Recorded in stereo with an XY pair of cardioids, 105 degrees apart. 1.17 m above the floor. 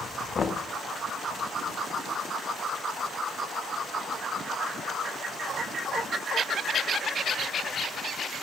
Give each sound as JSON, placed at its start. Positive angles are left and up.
{"t": 0.3, "sound": "knocking", "azimuth_deg": 40, "distance_m": 0.6}